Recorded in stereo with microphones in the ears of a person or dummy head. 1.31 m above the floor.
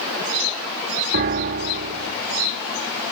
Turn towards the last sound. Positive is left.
turn(degrees=-45)  # may be behind; listen again after turning